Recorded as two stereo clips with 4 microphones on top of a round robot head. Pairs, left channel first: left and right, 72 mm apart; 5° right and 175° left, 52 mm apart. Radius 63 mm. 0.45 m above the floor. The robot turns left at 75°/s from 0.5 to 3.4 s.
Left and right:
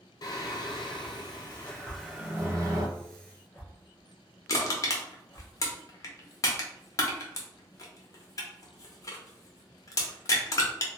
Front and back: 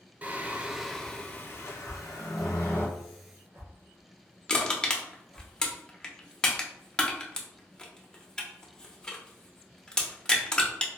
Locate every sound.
0.2 s singing: 115° left, 0.7 m; by 2.9 s 60° right, 0.7 m
1.9 s a whoosh: 90° right, 1.9 m; by 5.5 s 155° left, 1.9 m
4.5 s crushing: 65° left, 0.8 m